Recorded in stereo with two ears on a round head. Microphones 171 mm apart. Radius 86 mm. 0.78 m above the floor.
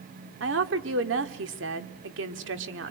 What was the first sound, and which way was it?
A woman speaking, 70° right (ahead or behind).